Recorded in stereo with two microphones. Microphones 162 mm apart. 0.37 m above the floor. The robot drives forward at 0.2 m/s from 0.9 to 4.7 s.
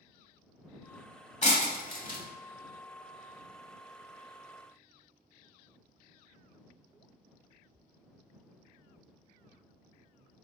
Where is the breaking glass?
45° left (ahead or behind), 0.8 m; by 2.2 s 55° left (ahead or behind), 0.7 m.